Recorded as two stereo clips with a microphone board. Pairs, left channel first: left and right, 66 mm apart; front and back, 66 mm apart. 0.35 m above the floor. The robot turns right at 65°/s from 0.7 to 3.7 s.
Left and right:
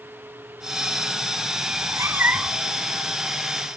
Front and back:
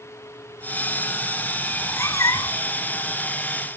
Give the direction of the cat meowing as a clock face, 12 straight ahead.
2 o'clock.